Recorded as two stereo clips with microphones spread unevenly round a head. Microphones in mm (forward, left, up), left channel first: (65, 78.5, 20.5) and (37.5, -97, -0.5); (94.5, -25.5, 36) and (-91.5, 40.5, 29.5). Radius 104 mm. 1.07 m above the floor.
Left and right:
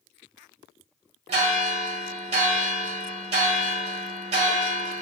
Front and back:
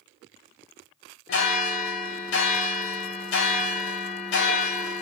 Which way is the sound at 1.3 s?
50° right.